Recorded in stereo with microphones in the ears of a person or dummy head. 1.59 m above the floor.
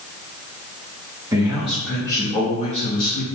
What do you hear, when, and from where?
1.3 s a man speaking: 20° right (ahead or behind), 0.8 m; by 3.3 s 45° left (ahead or behind), 1.2 m